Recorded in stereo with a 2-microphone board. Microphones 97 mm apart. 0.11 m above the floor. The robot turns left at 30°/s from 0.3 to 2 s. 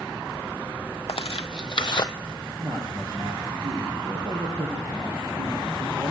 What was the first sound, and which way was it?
Tearing paper, 70° left (ahead or behind).